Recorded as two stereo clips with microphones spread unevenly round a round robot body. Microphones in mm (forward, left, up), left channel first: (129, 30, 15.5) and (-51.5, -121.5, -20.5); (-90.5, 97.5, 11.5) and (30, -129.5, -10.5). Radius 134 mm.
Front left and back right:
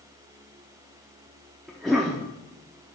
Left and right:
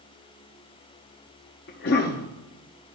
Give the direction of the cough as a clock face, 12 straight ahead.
7 o'clock.